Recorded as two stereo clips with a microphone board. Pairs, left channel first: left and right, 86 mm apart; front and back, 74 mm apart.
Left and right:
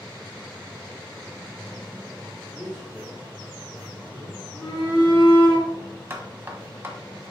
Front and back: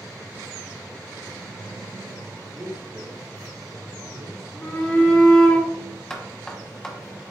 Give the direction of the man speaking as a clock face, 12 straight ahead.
6 o'clock.